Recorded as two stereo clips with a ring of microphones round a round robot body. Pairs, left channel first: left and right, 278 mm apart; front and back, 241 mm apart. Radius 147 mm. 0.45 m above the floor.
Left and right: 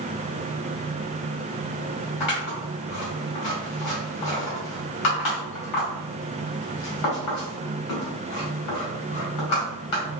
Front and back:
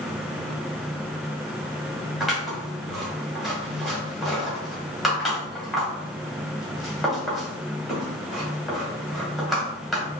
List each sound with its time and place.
2.2 s scissors: 90° left, 2.0 m